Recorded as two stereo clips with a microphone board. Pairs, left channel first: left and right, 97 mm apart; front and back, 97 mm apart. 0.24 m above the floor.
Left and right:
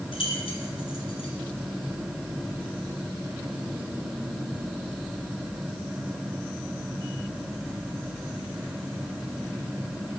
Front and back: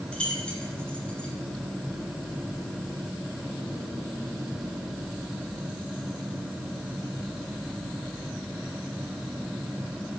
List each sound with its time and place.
0.1 s keys jangling: 80° left, 2.5 m